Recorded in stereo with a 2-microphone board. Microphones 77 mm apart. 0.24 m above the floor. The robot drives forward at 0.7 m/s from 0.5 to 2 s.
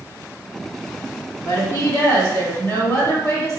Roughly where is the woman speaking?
Left.